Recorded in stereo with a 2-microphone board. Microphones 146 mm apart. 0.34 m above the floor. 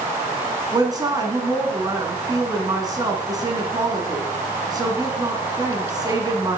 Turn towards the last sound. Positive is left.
turn(degrees=-25)  # may be behind; listen again after turning